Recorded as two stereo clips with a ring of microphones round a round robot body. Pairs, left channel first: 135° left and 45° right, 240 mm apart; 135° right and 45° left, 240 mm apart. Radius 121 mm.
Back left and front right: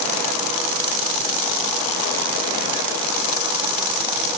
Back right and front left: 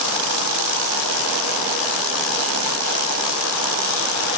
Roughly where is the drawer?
I don't hear a drawer.